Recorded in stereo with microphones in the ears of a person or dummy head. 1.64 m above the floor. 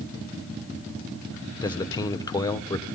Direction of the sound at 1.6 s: 20° left (ahead or behind).